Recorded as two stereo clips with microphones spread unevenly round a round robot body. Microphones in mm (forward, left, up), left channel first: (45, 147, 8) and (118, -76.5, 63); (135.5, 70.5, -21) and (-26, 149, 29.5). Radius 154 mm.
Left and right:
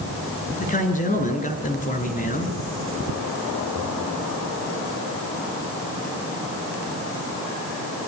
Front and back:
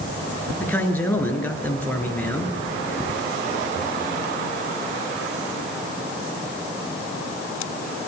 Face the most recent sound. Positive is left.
turn(degrees=55)